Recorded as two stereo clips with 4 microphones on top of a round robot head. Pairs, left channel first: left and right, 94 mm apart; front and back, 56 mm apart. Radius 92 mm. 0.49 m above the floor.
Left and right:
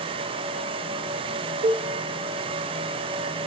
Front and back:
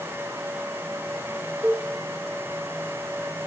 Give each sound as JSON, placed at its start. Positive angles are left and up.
{"t": 1.6, "sound": "a cowbell", "azimuth_deg": -90, "distance_m": 0.8}